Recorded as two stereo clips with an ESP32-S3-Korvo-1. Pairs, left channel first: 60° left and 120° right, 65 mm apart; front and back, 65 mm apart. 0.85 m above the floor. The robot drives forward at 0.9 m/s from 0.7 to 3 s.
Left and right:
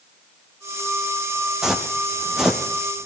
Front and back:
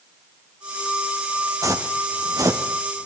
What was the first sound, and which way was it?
Footsteps, 160° left.